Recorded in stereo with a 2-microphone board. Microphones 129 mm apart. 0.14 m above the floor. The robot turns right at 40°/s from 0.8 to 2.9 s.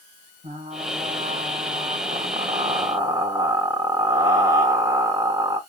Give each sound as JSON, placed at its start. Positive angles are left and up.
{"t": 0.4, "sound": "frying", "azimuth_deg": -110, "distance_m": 6.0}